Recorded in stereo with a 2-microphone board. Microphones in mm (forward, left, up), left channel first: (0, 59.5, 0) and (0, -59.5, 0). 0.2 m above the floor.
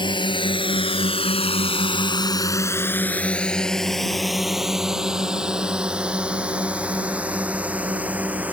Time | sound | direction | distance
0.0 | a drone | 45° left (ahead or behind) | ?